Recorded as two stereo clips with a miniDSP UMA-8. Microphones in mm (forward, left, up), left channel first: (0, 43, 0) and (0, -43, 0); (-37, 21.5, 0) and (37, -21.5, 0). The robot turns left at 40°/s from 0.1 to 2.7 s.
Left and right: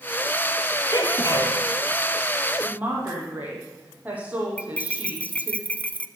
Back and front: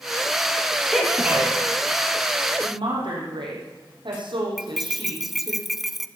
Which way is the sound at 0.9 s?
65° left.